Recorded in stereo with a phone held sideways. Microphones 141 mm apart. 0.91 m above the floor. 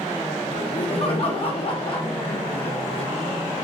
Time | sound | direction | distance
0.5 | laughter | 45° left (ahead or behind) | 0.8 m